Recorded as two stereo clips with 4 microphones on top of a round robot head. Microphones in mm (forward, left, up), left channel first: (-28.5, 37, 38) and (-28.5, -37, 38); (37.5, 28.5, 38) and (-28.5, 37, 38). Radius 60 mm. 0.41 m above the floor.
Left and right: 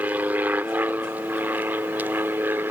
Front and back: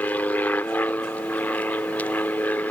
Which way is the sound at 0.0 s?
45° right.